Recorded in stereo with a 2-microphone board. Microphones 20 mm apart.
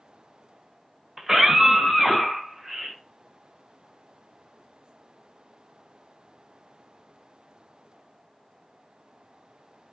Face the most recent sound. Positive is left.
turn(degrees=-10)  # may be behind; listen again after turning